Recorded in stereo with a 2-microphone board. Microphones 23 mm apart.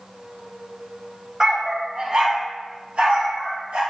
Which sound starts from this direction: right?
A dog barking, at 1.4 s.